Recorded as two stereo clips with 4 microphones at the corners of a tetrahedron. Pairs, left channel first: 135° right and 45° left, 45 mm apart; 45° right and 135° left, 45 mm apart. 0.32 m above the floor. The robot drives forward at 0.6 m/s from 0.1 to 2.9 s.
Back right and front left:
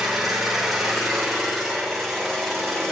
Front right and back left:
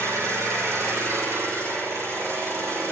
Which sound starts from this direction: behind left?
An engine running, at 0.0 s.